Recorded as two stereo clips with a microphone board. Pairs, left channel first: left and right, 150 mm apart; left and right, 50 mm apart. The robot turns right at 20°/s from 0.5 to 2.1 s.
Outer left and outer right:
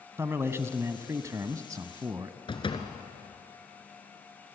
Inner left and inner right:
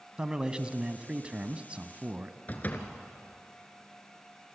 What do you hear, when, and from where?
0.2 s a man speaking: 15° right (ahead or behind), 1.0 m; by 2.4 s 25° right (ahead or behind), 1.0 m
2.5 s a door slam: 35° left (ahead or behind), 2 m